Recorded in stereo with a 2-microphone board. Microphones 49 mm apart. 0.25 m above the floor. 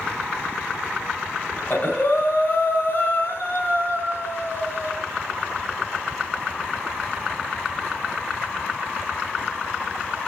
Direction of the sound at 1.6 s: 40° left (ahead or behind).